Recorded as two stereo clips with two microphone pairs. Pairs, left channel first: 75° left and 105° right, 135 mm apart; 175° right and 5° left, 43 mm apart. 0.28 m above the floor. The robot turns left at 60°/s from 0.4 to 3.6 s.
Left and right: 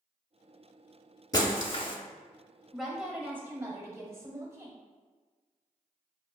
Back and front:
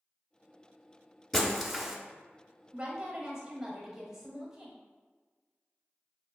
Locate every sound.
1.3 s breaking glass: 110° left, 0.6 m; by 2.0 s 70° left, 0.6 m
2.7 s a woman speaking: 5° right, 0.9 m; by 4.8 s 60° right, 0.9 m